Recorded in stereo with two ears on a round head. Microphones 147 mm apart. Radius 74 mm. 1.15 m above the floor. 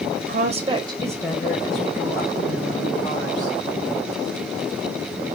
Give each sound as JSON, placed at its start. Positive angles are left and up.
{"t": 0.2, "sound": "a woman speaking", "side_deg": -75, "distance_m": 0.8}